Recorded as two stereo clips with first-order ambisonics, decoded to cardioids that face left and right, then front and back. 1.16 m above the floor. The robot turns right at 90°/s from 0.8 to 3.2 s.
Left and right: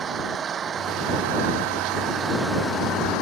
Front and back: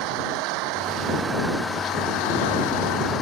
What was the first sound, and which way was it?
An engine running, 155° right.